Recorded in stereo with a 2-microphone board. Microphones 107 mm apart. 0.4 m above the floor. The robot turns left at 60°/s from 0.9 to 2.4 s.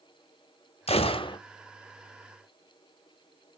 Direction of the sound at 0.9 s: 70° left (ahead or behind).